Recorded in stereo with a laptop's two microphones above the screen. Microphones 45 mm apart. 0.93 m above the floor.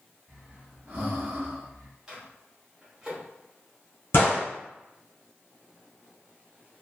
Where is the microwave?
15° right (ahead or behind), 0.9 m.